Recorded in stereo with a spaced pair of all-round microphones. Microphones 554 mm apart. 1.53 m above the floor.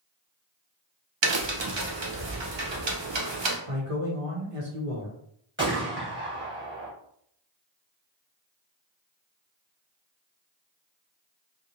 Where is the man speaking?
70° right (ahead or behind), 1.0 m.